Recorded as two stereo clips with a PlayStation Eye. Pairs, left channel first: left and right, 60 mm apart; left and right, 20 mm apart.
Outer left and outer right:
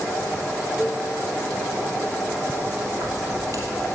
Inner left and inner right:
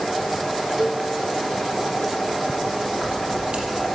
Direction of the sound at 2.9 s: 65° right (ahead or behind).